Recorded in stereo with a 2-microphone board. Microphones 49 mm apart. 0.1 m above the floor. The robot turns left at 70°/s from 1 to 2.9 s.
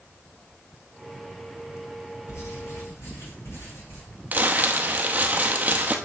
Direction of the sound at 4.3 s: 35° right (ahead or behind).